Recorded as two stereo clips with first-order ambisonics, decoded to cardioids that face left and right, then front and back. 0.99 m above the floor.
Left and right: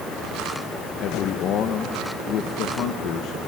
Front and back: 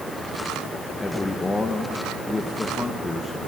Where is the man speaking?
80° left, 1.1 m.